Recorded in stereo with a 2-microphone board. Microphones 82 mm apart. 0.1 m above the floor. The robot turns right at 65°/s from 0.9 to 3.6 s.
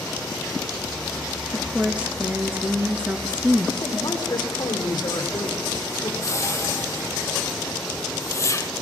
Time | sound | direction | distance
1.5 | a woman speaking | 5° right (ahead or behind) | 1.2 m
3.8 | a man speaking | 50° left (ahead or behind) | 4 m
6.2 | a whoosh | 35° left (ahead or behind) | 0.9 m